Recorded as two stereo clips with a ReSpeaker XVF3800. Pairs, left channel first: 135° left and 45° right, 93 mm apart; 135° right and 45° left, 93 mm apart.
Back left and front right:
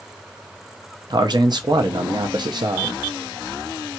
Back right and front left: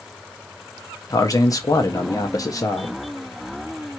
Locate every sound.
1.1 s a man speaking: 85° right, 0.6 m